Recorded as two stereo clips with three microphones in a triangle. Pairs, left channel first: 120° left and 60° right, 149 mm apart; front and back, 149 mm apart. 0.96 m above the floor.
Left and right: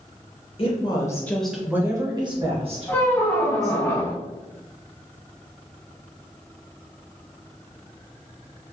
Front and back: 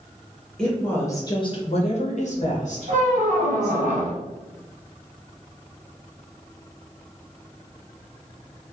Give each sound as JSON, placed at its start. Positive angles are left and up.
{"t": 0.6, "sound": "a woman speaking", "azimuth_deg": 85, "distance_m": 0.7}
{"t": 2.9, "sound": "a squeak", "azimuth_deg": -170, "distance_m": 0.5}